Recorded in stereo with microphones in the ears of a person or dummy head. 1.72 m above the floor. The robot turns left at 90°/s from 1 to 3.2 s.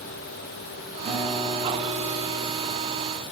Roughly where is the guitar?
Behind.